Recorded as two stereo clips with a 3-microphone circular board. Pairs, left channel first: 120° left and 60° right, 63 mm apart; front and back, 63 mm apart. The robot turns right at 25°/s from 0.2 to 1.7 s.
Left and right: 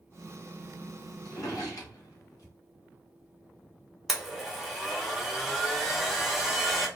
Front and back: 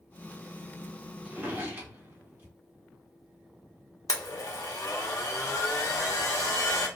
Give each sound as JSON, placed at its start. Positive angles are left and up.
{"t": 1.2, "sound": "a drawer", "azimuth_deg": 115, "distance_m": 1.4}
{"t": 4.1, "sound": "a blender", "azimuth_deg": 30, "distance_m": 0.7}